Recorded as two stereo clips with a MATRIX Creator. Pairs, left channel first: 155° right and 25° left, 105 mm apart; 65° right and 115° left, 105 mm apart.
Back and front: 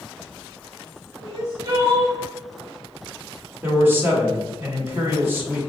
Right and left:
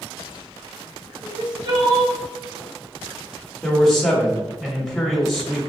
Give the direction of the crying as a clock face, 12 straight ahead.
9 o'clock.